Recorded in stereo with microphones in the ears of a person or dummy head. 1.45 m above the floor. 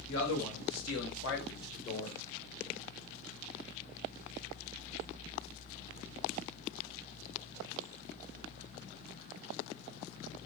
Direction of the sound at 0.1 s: 65° left (ahead or behind).